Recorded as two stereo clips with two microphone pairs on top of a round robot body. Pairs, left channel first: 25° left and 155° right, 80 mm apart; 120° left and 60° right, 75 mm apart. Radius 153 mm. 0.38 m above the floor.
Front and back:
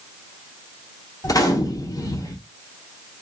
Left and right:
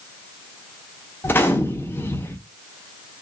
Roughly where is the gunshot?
Ahead left.